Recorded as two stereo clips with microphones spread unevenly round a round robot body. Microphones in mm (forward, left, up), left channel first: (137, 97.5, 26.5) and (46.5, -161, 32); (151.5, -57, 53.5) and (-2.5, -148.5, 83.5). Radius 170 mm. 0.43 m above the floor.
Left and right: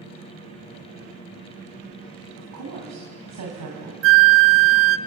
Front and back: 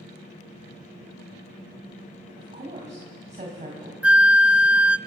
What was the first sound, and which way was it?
A woman speaking, 95° right.